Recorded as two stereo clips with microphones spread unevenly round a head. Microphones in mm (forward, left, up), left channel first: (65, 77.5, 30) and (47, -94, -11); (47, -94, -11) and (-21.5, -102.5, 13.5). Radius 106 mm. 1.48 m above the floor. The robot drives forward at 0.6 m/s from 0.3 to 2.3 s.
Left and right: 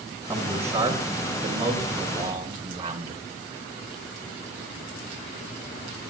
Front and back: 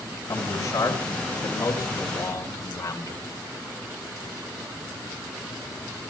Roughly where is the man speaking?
Ahead.